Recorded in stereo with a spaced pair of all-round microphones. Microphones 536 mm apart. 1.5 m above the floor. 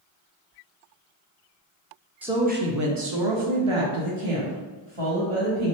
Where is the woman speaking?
5° right (ahead or behind), 0.6 m; by 5.8 s 70° right (ahead or behind), 1.8 m.